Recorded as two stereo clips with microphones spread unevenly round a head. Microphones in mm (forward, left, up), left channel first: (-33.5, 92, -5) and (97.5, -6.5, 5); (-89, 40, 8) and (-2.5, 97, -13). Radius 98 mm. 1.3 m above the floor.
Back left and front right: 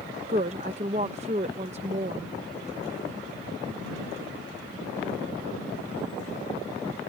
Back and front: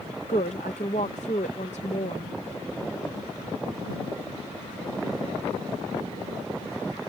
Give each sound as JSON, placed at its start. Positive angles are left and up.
{"t": 0.3, "sound": "a woman speaking", "azimuth_deg": -95}